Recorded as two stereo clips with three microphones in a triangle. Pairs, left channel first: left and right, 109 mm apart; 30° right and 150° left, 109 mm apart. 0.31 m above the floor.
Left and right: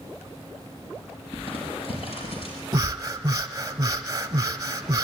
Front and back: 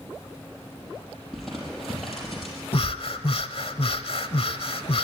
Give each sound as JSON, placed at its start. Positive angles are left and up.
{"t": 1.3, "sound": "crumpling", "azimuth_deg": 60, "distance_m": 5.0}
{"t": 2.7, "sound": "breathing", "azimuth_deg": -40, "distance_m": 0.8}